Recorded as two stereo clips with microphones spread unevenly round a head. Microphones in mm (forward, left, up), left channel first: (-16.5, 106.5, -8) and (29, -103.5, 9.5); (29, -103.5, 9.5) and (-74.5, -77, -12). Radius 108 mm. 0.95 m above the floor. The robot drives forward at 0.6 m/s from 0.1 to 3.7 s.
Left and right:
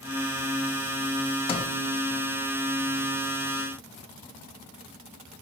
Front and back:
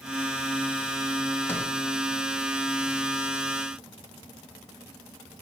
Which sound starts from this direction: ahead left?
A sliding door, at 1.5 s.